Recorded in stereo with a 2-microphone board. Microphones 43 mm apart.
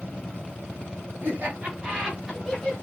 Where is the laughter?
45° right (ahead or behind), 2.0 m; by 2.7 s 15° left (ahead or behind), 1.5 m.